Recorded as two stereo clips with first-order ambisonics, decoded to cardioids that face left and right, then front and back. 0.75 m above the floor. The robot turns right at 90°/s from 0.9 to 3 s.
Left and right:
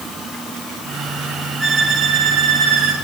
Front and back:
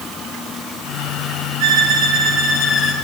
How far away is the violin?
About 7 m.